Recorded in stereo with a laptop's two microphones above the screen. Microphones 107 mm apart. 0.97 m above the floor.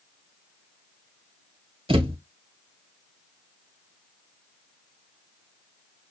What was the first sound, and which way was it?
A thud, 65° right (ahead or behind).